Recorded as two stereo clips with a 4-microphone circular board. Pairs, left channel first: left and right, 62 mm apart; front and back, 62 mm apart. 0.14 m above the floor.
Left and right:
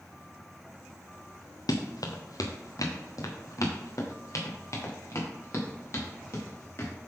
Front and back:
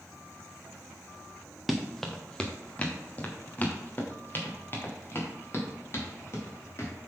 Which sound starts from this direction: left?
Running footsteps, at 1.7 s.